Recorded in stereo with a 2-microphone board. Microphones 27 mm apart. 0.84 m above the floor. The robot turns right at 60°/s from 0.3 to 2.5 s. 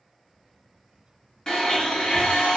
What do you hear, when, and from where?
1.5 s a blender: 30° left, 1.1 m; by 2.6 s 95° left, 1.1 m